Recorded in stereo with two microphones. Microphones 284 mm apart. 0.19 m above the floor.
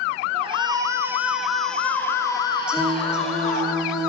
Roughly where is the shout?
Centre.